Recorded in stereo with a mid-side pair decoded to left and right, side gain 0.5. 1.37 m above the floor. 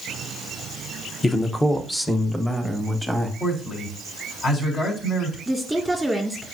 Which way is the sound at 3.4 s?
45° left.